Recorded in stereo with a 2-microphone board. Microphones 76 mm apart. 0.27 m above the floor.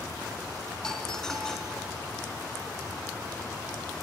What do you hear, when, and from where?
0.8 s a doorbell: 5° left (ahead or behind), 3.5 m